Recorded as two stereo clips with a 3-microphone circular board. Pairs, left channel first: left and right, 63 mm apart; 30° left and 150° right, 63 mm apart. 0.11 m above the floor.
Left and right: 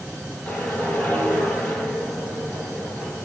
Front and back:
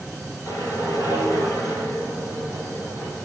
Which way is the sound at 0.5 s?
20° left.